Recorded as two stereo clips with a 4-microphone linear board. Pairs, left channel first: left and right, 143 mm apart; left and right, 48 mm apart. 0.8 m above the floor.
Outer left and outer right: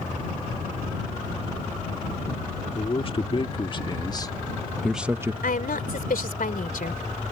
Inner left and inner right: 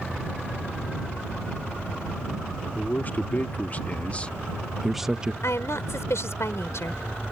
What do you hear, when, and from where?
2.8 s a man speaking: 40° left (ahead or behind); by 5.3 s 20° right (ahead or behind)
5.4 s a woman speaking: 75° left (ahead or behind)